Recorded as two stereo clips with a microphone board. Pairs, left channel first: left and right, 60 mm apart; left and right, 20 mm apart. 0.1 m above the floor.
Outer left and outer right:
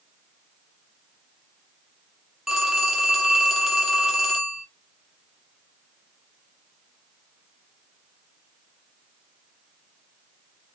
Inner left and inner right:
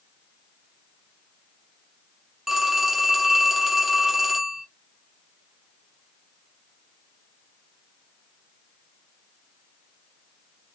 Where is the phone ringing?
Centre (ahead or behind), 2.5 m.